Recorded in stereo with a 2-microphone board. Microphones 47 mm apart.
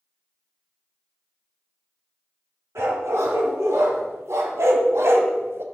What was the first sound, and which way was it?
A dog barking, 75° right (ahead or behind).